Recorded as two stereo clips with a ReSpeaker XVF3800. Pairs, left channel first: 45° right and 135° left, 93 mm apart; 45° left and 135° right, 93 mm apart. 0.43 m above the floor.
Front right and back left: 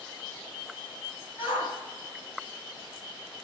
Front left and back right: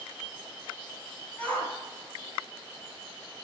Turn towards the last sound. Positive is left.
turn(degrees=-35)